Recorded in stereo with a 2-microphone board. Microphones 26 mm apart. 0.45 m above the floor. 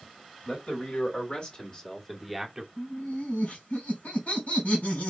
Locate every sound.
0.5 s a man speaking: 55° left (ahead or behind), 2.5 m; by 2.7 s 15° right (ahead or behind), 1.4 m
2.8 s laughter: 70° left (ahead or behind), 3.5 m